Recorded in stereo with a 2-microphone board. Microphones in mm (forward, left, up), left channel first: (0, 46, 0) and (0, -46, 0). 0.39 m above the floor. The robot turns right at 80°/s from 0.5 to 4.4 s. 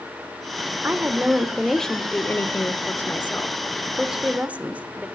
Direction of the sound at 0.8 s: 20° right (ahead or behind).